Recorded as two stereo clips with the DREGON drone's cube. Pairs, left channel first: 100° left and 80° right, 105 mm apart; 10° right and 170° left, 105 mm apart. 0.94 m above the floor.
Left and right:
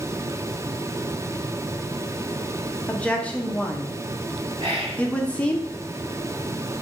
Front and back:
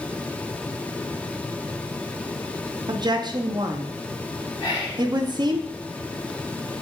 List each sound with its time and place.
2.9 s a woman speaking: 170° left, 0.5 m
4.6 s whispering: 55° right, 2 m